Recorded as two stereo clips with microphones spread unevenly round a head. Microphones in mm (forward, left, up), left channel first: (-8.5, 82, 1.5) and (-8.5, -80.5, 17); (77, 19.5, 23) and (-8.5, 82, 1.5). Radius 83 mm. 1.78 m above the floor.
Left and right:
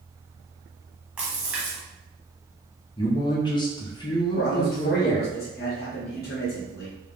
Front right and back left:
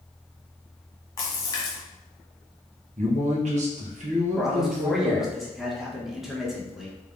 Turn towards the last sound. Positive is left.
turn(degrees=55)